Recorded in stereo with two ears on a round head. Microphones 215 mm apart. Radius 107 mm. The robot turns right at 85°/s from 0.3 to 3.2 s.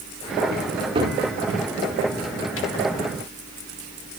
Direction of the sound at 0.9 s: 25° right (ahead or behind).